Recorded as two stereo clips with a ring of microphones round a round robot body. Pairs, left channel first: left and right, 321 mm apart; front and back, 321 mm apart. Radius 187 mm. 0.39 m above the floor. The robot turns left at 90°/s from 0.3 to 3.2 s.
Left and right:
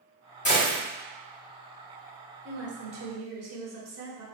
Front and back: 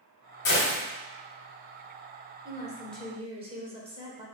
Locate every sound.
0.5 s a gunshot: 35° left, 1.1 m; by 0.8 s 5° left, 1.1 m
2.5 s a woman speaking: 45° right, 1.4 m; by 4.3 s 110° right, 1.4 m